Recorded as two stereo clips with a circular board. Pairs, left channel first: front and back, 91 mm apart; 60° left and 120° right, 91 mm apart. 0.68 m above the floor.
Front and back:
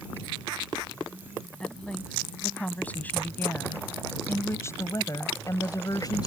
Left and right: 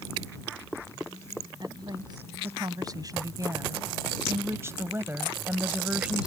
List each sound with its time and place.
1.6 s a woman speaking: 80° right; by 6.3 s 40° right